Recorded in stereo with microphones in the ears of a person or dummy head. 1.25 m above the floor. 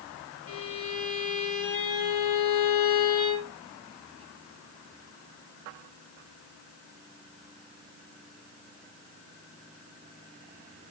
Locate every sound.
0.5 s a violin: 40° left (ahead or behind), 1.3 m